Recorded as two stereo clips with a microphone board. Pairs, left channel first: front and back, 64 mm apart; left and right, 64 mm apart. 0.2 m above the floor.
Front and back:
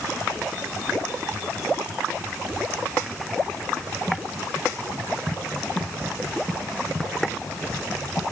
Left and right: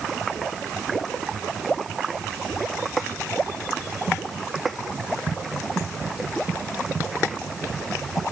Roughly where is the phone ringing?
No phone ringing in this recording.